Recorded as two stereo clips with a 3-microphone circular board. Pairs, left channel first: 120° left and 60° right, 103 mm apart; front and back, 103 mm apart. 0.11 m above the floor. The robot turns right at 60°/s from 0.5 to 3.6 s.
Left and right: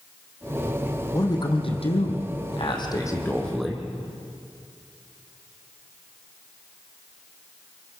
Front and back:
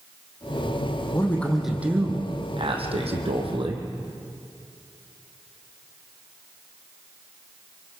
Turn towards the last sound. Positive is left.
turn(degrees=-150)